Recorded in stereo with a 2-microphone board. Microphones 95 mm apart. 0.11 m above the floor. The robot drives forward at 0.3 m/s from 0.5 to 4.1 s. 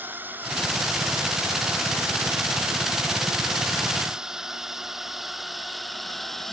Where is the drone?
20° right (ahead or behind); by 6.5 s 5° left (ahead or behind).